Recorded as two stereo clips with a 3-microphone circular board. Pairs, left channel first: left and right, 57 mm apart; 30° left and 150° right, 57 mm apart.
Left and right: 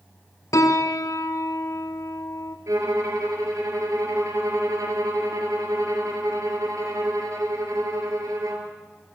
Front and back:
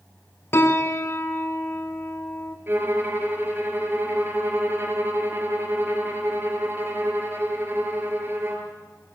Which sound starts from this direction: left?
A piano, at 0.5 s.